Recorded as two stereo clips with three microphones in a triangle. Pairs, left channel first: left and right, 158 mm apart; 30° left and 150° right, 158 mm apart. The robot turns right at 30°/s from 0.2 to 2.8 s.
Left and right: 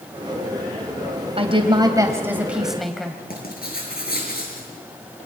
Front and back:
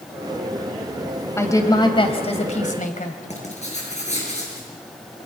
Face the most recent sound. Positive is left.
turn(degrees=75)